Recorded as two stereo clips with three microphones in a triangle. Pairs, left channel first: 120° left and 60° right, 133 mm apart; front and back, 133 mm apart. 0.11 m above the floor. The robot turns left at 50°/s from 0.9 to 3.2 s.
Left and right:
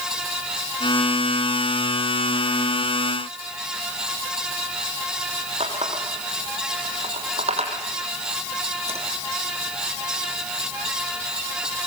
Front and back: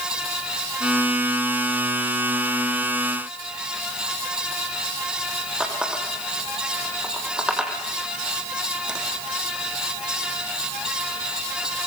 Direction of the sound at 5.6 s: 95° right.